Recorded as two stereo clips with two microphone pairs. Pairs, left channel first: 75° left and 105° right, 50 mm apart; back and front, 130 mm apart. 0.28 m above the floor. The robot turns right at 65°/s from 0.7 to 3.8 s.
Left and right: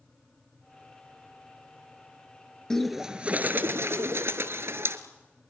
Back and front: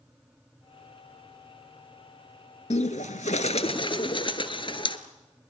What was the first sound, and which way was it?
A bird, 155° left.